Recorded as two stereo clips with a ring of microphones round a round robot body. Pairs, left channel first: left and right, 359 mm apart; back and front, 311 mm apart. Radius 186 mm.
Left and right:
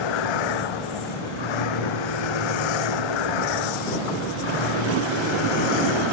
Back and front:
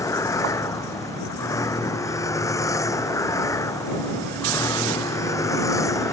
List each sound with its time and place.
0.0 s a vehicle: 100° left